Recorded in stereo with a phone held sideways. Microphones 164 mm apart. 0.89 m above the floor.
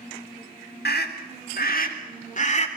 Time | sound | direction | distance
0.8 | a scream | 75° left (ahead or behind) | 3 m